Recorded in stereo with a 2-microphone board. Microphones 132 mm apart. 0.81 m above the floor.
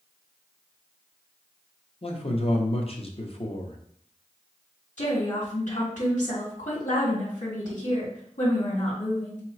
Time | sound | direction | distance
2.0 | a man speaking | 45° left (ahead or behind) | 0.7 m
5.0 | a woman speaking | 65° left (ahead or behind) | 2 m